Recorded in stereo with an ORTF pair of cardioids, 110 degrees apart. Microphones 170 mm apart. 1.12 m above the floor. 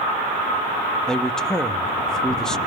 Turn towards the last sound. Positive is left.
turn(degrees=5)